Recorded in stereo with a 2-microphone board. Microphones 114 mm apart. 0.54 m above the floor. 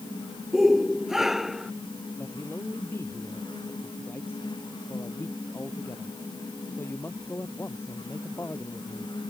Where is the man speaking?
20° left (ahead or behind).